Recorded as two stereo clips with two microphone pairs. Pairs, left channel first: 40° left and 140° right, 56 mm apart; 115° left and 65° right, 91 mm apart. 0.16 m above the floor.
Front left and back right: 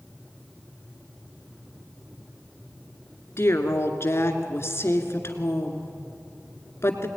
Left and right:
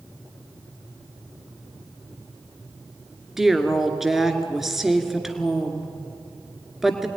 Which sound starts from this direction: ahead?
A woman speaking, at 3.4 s.